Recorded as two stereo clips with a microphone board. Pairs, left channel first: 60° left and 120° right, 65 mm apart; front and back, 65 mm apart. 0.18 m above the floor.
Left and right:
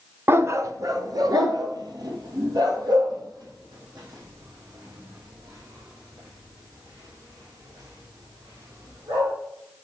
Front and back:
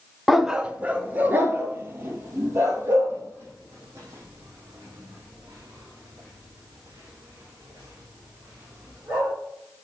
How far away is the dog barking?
About 0.7 m.